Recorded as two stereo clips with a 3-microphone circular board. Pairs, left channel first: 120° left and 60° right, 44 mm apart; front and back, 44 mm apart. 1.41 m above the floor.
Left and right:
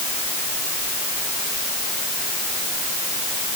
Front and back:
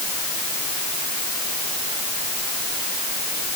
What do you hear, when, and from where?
Only background noise.